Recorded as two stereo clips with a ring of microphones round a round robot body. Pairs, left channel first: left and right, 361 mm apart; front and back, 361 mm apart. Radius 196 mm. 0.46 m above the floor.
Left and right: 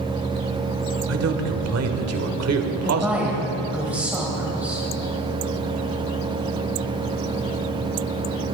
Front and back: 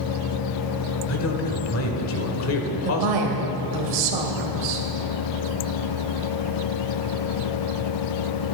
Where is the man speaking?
50° right, 1.5 m.